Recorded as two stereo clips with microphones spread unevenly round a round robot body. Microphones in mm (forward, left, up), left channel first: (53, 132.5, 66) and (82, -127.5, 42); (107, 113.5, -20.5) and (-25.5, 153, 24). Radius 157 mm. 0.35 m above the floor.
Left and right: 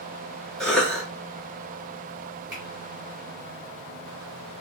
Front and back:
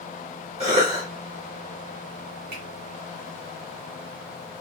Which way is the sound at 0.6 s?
170° right.